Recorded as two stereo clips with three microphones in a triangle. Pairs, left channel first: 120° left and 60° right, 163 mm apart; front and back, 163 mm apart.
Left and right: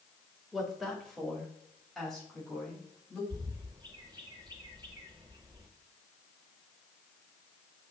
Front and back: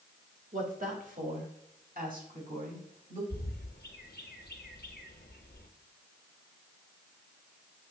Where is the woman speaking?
150° right, 1.9 m.